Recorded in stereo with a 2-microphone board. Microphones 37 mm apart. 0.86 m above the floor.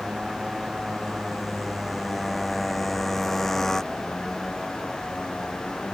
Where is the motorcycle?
15° right (ahead or behind); by 5.9 s 30° left (ahead or behind).